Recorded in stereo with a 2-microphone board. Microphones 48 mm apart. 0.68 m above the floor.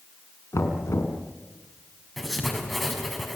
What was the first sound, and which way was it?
Knocking, 80° left.